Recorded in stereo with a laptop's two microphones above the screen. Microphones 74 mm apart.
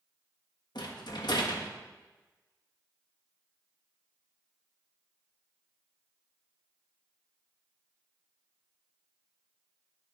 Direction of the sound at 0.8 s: 75° left (ahead or behind).